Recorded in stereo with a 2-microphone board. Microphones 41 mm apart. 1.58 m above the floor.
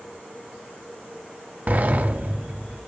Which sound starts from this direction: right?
A sliding door, at 1.7 s.